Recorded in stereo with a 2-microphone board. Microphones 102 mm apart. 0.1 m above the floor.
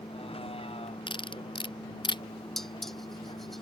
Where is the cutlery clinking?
55° left (ahead or behind).